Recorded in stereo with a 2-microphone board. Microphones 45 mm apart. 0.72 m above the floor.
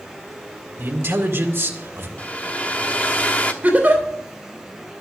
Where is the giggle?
35° right (ahead or behind), 3 m.